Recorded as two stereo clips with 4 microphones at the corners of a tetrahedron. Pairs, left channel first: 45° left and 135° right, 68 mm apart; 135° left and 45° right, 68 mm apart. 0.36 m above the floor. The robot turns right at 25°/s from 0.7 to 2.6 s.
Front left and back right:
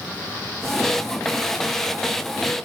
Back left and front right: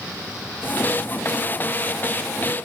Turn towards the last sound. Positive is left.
No sound to turn to.